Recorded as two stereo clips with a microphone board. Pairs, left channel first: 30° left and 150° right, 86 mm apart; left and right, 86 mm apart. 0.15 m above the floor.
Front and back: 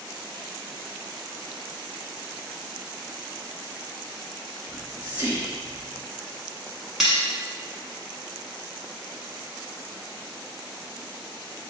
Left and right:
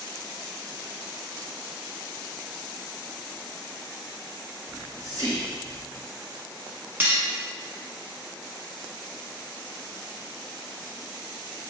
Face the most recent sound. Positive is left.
turn(degrees=-70)